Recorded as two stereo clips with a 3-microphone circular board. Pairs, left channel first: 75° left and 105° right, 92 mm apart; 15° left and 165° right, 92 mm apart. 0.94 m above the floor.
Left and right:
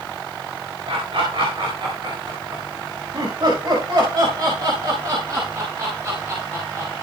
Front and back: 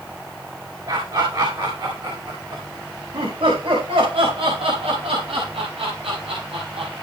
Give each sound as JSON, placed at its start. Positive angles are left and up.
{"t": 0.9, "sound": "laughter", "azimuth_deg": -125, "distance_m": 4.0}